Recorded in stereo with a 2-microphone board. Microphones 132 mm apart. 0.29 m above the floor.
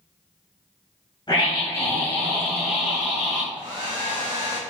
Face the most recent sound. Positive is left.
turn(degrees=-35)  # may be behind; listen again after turning